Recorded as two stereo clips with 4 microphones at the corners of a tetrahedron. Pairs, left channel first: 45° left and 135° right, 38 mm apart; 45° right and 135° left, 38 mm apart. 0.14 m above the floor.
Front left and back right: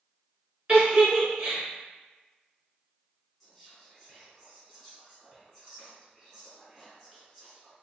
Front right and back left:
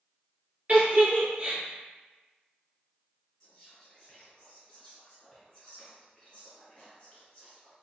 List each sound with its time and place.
0.7 s a giggle: 165° left, 1.3 m
3.4 s whispering: 15° right, 1.6 m